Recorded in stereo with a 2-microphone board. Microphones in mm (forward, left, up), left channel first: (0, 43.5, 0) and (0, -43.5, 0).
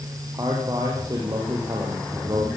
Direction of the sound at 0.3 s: 40° right (ahead or behind).